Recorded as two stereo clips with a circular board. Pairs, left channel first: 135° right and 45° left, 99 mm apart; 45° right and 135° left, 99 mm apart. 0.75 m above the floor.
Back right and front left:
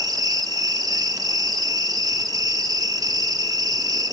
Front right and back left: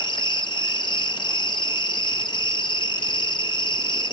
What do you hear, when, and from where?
0.0 s an insect: 5° right, 0.7 m